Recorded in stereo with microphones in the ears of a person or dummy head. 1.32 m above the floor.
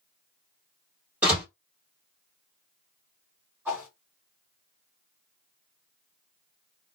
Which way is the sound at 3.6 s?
10° right (ahead or behind).